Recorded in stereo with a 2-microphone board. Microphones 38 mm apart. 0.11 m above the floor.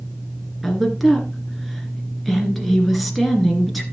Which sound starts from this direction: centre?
A woman speaking, at 0.6 s.